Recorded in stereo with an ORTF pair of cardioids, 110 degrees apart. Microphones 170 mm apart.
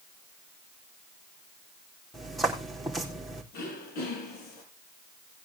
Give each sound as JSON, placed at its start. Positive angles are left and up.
{"t": 2.1, "sound": "footsteps", "azimuth_deg": 0, "distance_m": 4.0}
{"t": 3.5, "sound": "throat clearing", "azimuth_deg": 65, "distance_m": 5.5}